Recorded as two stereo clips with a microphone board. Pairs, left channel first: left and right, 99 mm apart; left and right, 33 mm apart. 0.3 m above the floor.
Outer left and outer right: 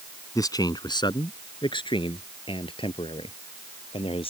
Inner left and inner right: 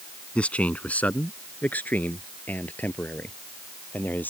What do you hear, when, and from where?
0.3 s a man speaking: 35° left (ahead or behind); by 4.3 s 65° left (ahead or behind)